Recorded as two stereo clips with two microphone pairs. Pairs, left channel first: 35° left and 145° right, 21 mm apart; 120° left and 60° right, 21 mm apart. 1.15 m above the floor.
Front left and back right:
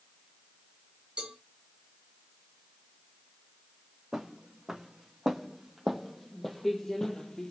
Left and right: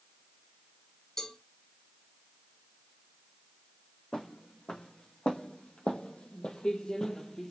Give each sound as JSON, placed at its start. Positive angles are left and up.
{"t": 1.2, "sound": "a cowbell", "azimuth_deg": -175, "distance_m": 3.5}
{"t": 4.1, "sound": "footsteps", "azimuth_deg": 140, "distance_m": 3.5}